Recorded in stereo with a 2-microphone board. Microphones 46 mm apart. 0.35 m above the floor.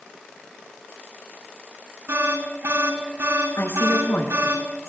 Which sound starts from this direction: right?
An alarm, at 2.1 s.